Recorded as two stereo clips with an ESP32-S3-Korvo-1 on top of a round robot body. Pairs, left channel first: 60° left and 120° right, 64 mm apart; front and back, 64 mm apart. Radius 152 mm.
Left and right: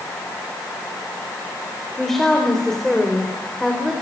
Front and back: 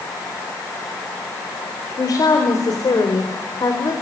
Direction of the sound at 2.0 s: 25° right.